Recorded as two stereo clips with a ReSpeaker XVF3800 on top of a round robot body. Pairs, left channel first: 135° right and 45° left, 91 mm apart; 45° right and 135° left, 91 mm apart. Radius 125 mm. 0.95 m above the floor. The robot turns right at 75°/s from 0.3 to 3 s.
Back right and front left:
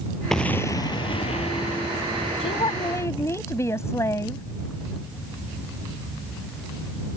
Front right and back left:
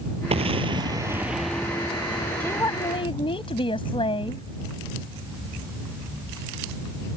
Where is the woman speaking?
120° right; by 4.4 s 75° right.